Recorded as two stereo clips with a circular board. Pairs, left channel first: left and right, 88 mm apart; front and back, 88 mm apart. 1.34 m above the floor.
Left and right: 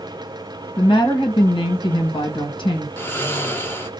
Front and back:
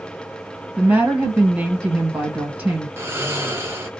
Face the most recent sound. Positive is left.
turn(degrees=135)